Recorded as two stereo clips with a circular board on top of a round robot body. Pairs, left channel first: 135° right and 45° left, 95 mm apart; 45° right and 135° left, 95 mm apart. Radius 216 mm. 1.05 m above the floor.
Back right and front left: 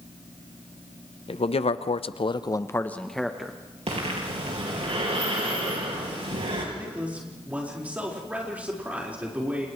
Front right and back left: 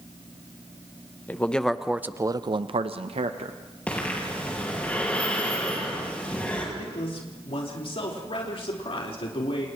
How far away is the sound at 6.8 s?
About 4.5 m.